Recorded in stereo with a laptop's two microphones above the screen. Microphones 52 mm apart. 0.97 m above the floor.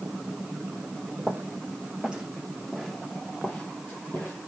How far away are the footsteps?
About 1.6 m.